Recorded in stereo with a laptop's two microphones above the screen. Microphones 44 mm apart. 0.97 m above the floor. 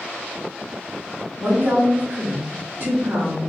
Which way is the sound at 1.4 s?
50° right (ahead or behind).